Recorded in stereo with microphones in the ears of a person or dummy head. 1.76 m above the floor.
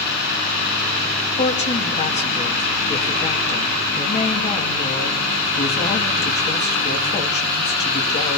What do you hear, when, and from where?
1.4 s a woman speaking: 40° left (ahead or behind), 2.5 m